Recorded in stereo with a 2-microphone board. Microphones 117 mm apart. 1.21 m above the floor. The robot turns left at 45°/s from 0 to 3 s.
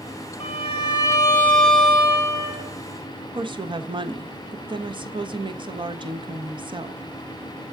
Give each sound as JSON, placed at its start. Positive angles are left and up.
{"t": 0.4, "sound": "a violin", "azimuth_deg": 60, "distance_m": 2.0}
{"t": 3.4, "sound": "a woman speaking", "side_deg": -40, "distance_m": 1.0}